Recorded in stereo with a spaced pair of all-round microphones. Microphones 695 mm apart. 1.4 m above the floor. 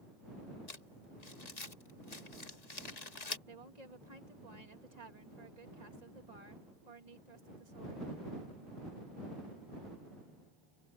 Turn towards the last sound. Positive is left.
turn(degrees=-70)  # may be behind; listen again after turning